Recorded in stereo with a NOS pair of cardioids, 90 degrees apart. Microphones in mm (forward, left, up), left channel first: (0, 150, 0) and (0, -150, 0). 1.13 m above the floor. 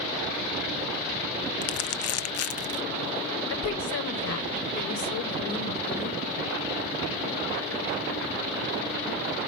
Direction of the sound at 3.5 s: 70° left.